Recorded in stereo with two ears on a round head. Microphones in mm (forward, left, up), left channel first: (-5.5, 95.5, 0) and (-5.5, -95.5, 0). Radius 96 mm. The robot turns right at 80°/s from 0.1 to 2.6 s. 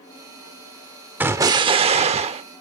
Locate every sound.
1.2 s an explosion: 10° right (ahead or behind), 0.9 m; by 2.4 s 25° right (ahead or behind), 0.9 m